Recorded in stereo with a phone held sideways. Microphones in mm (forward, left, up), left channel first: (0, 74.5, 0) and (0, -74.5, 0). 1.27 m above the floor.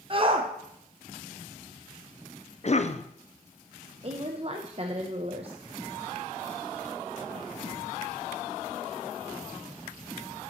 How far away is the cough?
About 0.6 m.